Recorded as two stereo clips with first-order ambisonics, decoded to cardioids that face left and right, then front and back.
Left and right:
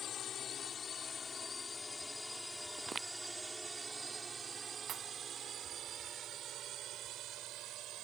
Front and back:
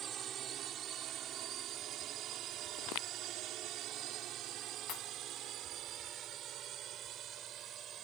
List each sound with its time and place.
0.0 s a drone: 135° left; by 8.1 s 130° right
2.8 s footsteps: 20° right
4.9 s a pop: 40° right